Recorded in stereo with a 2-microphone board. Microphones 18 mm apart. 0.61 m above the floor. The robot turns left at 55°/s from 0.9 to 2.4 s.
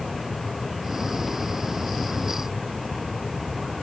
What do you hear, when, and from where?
Only background noise.